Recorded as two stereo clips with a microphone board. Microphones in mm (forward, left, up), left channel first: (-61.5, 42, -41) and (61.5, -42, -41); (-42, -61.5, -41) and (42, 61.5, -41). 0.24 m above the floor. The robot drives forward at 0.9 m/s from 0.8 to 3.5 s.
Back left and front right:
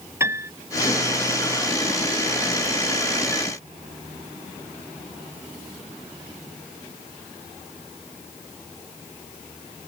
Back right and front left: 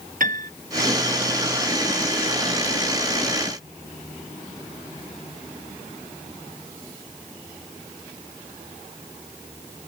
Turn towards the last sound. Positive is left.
turn(degrees=115)